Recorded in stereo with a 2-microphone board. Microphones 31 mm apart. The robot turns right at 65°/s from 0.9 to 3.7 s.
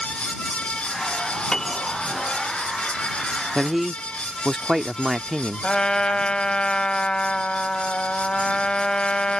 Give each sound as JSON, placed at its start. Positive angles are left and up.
{"t": 1.5, "sound": "a piano", "side_deg": 20}
{"t": 3.5, "sound": "a man speaking", "side_deg": -15}
{"t": 5.6, "sound": "a trumpet", "side_deg": 30}